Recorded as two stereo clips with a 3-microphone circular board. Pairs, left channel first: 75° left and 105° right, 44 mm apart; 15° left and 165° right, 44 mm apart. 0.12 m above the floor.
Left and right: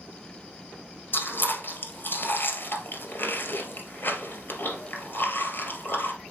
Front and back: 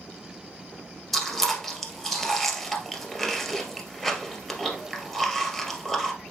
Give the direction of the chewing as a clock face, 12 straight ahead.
9 o'clock.